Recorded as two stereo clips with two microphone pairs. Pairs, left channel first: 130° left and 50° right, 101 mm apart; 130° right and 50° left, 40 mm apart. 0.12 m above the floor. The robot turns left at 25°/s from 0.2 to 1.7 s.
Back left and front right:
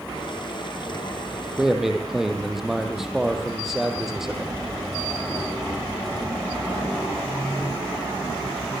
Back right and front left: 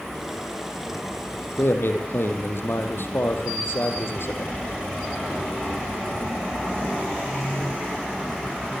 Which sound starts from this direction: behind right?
A man speaking, at 1.6 s.